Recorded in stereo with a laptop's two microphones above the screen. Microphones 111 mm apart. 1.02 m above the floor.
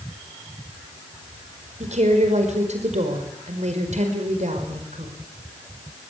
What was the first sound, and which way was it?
A woman speaking, 80° right.